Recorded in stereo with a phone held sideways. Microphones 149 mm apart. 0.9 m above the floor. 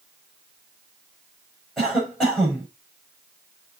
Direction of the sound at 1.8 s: Centre (ahead or behind).